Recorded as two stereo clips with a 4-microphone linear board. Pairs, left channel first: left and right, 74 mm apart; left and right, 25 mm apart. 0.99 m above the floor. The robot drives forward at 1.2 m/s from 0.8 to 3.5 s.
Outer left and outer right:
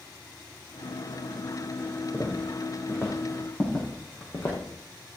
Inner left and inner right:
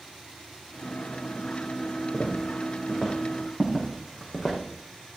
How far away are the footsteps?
About 3.5 m.